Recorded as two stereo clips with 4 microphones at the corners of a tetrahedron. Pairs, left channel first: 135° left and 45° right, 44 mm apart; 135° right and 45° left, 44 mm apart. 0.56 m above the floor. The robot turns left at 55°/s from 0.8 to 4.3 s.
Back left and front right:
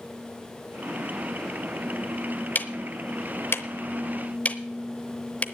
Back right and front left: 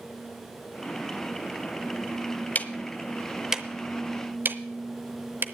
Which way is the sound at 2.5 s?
175° left.